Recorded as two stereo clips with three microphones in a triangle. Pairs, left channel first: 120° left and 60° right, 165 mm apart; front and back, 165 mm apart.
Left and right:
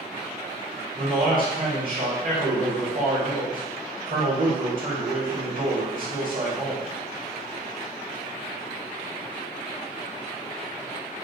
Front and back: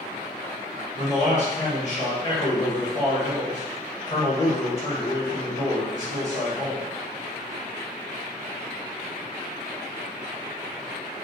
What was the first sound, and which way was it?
A man speaking, 45° right.